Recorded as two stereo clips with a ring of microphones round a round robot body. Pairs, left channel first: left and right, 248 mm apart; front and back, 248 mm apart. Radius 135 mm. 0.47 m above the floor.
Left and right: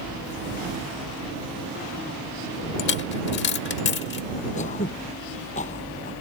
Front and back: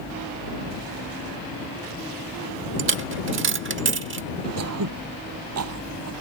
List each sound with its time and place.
2.8 s a dropped coin: 140° left
4.6 s throat clearing: 155° left